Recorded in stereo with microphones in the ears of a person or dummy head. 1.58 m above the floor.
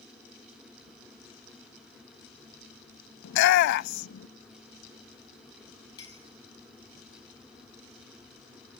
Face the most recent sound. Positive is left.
turn(degrees=25)  # may be behind; listen again after turning